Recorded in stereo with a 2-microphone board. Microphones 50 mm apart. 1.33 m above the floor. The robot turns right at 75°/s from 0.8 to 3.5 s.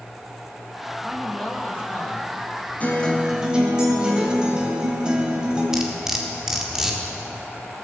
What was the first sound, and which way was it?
A man speaking, 15° right.